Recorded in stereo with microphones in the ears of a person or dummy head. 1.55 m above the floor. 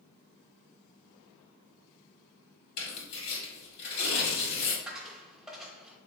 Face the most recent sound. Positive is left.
turn(degrees=-5)  # may be behind; listen again after turning